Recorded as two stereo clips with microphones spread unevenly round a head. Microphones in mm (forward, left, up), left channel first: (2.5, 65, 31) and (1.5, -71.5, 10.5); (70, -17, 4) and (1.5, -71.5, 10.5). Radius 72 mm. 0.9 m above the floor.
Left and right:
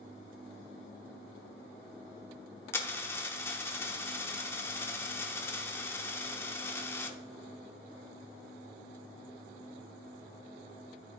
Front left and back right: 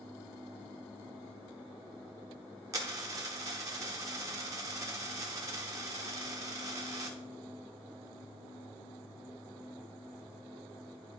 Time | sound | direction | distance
2.7 | a dropped coin | 155° left | 0.7 m